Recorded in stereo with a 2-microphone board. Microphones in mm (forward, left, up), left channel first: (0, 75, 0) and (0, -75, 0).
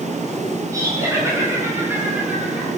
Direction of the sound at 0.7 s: 25° right (ahead or behind).